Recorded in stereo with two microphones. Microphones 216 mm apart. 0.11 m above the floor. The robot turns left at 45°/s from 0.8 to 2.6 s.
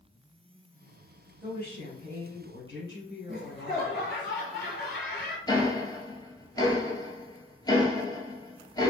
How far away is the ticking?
About 0.8 m.